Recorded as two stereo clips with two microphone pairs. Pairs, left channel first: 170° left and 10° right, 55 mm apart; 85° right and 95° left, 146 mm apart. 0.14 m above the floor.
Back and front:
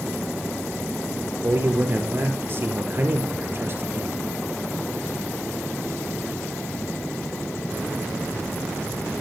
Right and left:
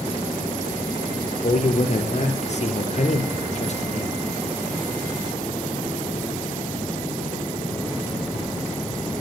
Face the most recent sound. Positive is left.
turn(degrees=-50)